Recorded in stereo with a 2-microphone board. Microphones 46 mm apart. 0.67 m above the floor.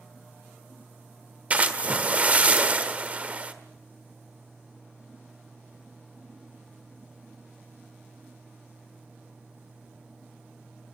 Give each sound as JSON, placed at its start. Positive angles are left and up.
{"t": 1.5, "sound": "a splash", "side_deg": -30, "distance_m": 1.4}